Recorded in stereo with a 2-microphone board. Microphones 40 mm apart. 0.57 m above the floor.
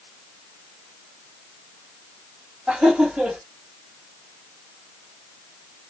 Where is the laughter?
35° right (ahead or behind), 1.4 m.